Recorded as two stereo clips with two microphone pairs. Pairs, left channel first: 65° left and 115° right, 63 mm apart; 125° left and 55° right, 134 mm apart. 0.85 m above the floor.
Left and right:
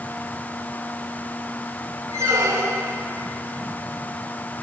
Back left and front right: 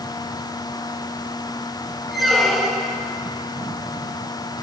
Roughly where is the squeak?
Behind right.